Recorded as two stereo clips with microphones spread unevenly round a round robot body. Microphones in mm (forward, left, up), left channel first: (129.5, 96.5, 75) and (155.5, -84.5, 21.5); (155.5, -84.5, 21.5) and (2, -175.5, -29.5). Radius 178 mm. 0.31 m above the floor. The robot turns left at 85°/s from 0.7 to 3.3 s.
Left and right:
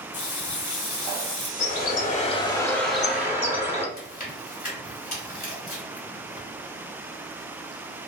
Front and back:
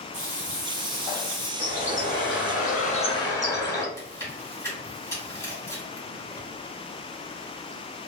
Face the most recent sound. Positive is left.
turn(degrees=110)